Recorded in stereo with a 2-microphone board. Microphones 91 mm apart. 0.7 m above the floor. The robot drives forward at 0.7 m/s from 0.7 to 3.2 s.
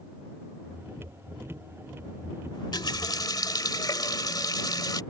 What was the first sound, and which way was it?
A running tap, 60° left (ahead or behind).